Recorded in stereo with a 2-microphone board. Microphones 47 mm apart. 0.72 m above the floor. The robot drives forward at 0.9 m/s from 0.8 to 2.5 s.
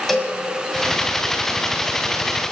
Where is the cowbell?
5° left (ahead or behind), 2 m.